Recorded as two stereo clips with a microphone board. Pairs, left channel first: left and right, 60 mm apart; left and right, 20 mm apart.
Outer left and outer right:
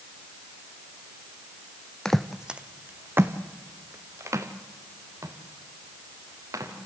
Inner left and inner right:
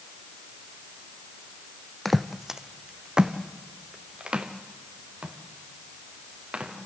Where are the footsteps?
10° left (ahead or behind), 0.6 m; by 6.7 s 60° right (ahead or behind), 3.5 m.